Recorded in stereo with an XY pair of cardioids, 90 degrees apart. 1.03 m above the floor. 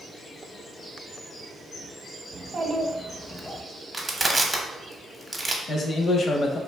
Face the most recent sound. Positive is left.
turn(degrees=50)